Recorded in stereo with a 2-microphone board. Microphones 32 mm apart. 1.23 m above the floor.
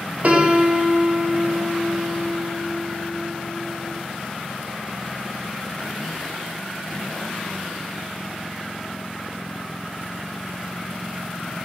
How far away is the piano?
About 0.5 m.